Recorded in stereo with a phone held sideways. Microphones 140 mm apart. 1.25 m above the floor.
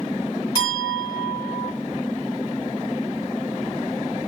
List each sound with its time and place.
0.6 s a clink: 35° left (ahead or behind), 3.5 m